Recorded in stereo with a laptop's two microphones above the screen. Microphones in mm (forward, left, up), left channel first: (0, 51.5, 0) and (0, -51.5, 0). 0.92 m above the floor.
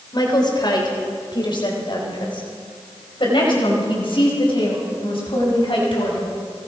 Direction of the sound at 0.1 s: 45° left (ahead or behind).